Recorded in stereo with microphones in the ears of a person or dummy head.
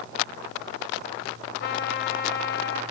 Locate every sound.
1.6 s a trumpet: 55° left (ahead or behind), 1.3 m